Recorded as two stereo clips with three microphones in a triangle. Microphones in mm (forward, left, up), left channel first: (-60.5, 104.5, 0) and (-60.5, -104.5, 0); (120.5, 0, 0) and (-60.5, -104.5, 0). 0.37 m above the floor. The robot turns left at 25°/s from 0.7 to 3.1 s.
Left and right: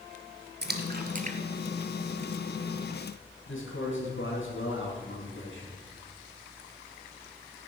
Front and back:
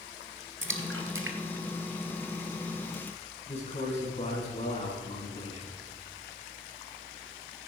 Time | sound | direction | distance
0.6 | a splash | 130° right | 1.4 m
3.5 | a man speaking | 85° left | 4.5 m